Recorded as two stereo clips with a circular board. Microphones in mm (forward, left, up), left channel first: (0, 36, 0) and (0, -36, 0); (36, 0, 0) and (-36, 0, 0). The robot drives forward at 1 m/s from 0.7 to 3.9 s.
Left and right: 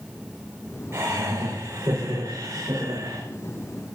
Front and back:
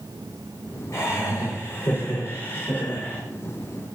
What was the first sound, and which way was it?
Laughter, 40° right.